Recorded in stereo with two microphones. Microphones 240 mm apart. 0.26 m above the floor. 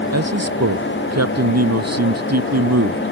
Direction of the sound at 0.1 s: 85° right.